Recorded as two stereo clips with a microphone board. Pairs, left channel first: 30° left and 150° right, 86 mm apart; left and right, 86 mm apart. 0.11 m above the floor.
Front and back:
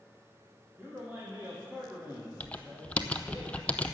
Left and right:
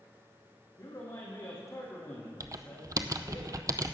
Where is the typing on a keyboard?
45° right, 0.6 m.